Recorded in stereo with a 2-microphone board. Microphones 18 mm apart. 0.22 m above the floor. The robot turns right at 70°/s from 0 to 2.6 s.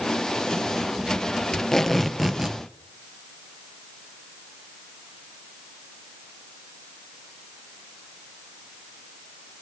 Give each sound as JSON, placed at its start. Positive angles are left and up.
{"t": 1.5, "sound": "tape being pulled", "azimuth_deg": 140, "distance_m": 1.8}